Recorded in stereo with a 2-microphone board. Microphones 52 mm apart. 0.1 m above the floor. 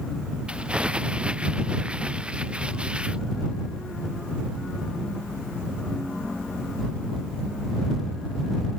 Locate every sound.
0.5 s crumpling: 20° right (ahead or behind)